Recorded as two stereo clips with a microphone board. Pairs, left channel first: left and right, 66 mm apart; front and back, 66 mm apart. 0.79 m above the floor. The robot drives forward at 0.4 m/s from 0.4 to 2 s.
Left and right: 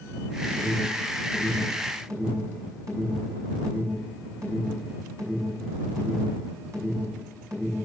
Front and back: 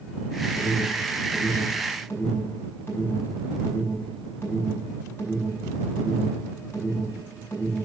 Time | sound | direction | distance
0.6 | an alarm | 50° right | 6 m